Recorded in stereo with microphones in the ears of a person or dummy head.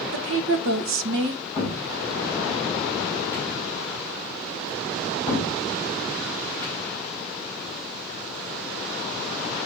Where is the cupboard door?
20° left (ahead or behind), 5 m.